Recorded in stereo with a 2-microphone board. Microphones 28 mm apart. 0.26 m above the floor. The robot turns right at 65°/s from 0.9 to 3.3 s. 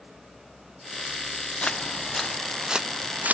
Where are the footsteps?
40° left (ahead or behind); by 3.3 s 60° right (ahead or behind).